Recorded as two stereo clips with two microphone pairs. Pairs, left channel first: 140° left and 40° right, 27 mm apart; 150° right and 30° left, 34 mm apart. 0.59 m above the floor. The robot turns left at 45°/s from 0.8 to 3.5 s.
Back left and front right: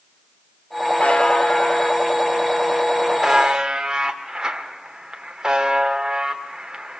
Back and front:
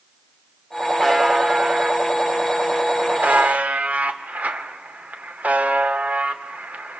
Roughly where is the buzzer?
Behind left.